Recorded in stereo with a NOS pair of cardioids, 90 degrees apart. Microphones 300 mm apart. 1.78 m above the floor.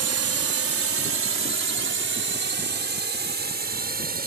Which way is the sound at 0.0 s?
50° right.